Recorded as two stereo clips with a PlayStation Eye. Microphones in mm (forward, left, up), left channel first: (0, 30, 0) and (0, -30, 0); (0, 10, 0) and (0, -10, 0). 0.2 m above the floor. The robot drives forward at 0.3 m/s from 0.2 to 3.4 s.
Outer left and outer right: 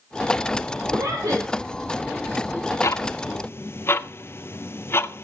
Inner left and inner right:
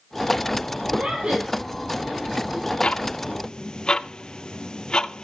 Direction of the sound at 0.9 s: 70° right (ahead or behind).